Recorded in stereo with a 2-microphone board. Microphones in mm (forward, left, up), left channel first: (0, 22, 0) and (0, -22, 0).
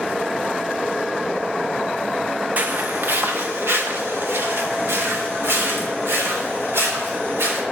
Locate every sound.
2.6 s footsteps: 40° right (ahead or behind), 0.5 m; by 7.6 s 70° right (ahead or behind), 4 m